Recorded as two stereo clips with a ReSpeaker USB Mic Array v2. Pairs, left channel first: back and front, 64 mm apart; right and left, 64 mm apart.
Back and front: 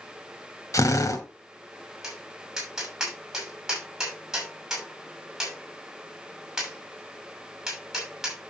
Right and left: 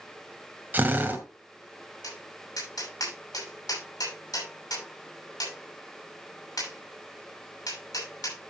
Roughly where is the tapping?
Right.